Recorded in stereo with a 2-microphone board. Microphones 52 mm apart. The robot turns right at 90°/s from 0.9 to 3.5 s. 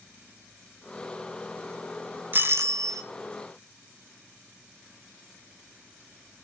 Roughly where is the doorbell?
Behind right.